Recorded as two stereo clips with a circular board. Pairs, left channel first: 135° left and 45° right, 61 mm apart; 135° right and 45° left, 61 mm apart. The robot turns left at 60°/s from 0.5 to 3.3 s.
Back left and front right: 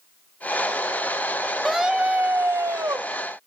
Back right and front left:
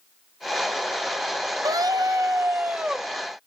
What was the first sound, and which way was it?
A scream, 45° left.